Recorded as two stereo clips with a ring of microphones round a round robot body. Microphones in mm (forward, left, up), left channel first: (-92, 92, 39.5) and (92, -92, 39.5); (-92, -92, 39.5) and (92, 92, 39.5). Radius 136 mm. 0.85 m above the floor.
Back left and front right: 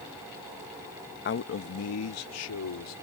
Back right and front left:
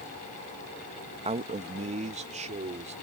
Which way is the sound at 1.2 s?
105° left.